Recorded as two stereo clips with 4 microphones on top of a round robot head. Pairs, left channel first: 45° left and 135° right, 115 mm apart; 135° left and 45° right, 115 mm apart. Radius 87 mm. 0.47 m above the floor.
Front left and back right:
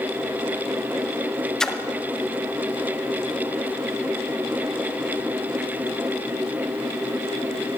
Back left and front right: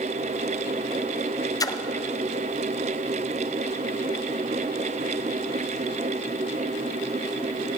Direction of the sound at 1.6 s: 125° left.